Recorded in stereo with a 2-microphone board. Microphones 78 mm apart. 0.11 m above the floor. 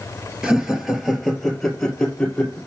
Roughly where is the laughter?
Centre.